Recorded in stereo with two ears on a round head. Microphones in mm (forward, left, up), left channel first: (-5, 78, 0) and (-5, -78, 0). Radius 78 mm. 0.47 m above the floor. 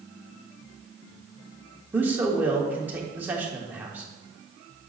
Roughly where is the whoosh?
I don't hear a whoosh.